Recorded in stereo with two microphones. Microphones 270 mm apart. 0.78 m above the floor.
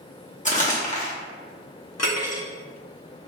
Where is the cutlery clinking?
70° left (ahead or behind), 0.8 m.